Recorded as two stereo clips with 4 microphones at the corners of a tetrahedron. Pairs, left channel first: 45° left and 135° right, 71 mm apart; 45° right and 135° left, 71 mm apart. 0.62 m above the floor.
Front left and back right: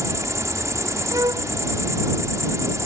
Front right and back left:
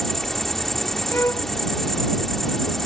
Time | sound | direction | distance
0.0 | an insect | 130° right | ?
1.1 | a violin | 100° right | ?